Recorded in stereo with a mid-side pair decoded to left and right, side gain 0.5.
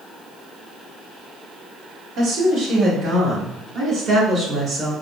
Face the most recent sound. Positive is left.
turn(degrees=-50)